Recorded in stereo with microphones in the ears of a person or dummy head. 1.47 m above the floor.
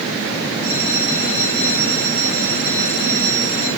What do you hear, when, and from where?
0.6 s a bell: 45° right (ahead or behind), 8.5 m